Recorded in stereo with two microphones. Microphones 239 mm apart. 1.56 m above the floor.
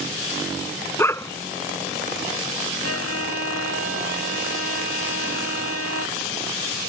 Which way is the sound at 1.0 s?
10° left (ahead or behind).